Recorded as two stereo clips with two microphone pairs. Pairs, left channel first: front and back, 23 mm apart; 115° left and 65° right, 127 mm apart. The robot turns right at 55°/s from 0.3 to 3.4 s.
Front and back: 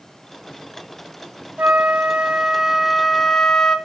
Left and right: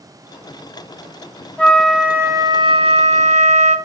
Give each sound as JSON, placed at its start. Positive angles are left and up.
{"t": 1.6, "sound": "a flute", "azimuth_deg": -170, "distance_m": 1.2}